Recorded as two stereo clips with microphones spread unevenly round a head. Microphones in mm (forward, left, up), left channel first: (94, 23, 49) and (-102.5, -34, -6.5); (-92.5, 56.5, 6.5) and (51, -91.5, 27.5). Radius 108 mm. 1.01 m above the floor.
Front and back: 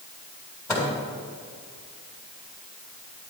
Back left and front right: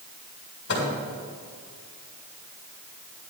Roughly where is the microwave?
Left.